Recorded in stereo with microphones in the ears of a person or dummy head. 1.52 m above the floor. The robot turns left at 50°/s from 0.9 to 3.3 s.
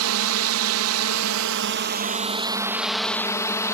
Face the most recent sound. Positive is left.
turn(degrees=165)